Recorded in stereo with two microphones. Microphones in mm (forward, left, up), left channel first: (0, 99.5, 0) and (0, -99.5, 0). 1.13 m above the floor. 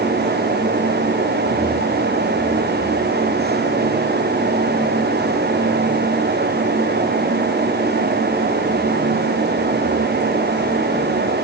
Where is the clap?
No clap in this recording.